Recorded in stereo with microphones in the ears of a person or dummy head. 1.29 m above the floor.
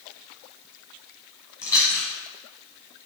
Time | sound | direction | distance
1.6 | chewing | 20° left (ahead or behind) | 0.9 m